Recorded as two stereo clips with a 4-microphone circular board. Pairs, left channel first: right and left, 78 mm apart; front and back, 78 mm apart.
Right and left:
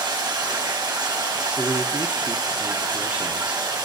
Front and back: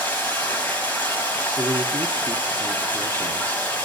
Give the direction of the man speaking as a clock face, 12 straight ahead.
7 o'clock.